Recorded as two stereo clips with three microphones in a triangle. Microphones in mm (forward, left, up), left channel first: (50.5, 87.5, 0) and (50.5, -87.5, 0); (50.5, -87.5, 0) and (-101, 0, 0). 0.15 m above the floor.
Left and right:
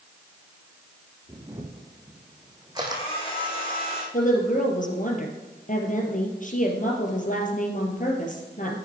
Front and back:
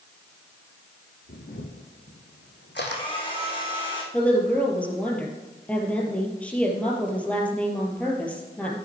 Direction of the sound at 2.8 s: 30° left.